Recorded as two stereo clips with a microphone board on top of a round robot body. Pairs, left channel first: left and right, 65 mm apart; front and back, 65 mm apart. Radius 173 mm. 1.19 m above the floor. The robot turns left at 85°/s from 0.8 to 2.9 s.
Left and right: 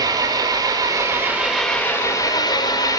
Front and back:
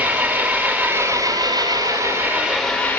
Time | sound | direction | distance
0.0 | an engine running | 110° right | 5.5 m